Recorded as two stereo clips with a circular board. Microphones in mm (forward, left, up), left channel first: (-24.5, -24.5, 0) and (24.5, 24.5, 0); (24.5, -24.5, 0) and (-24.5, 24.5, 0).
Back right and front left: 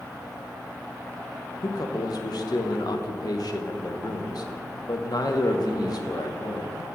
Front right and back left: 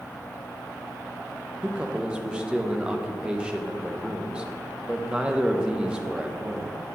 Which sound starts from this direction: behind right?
A man speaking, at 1.6 s.